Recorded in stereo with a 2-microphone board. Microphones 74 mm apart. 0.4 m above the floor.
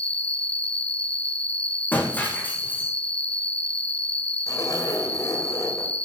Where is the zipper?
50° left (ahead or behind), 2 m.